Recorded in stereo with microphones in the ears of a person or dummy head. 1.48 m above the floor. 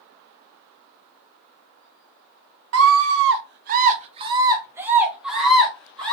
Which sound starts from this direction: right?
A scream, at 2.7 s.